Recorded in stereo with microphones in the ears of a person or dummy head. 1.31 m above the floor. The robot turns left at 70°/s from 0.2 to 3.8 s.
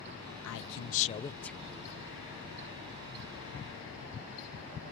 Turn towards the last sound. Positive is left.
turn(degrees=-155)